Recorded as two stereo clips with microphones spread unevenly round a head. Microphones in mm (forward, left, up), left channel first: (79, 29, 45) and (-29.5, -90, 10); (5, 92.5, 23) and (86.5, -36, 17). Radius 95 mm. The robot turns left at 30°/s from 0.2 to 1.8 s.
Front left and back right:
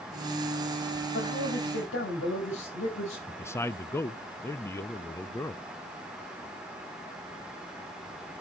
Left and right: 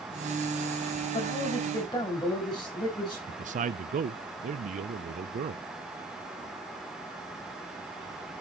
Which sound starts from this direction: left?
A man speaking, at 1.1 s.